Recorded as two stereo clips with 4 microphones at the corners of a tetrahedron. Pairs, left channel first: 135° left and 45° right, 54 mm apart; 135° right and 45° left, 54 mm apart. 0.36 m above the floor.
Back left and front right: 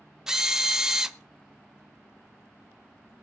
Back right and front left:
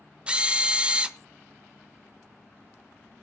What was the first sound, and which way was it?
A drill, 15° left.